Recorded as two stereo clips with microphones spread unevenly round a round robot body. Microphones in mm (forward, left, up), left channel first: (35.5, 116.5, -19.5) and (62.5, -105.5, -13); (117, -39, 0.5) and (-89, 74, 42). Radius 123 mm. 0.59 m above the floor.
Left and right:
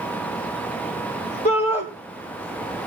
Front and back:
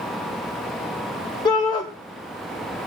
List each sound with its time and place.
1.4 s a shout: 40° left, 2.5 m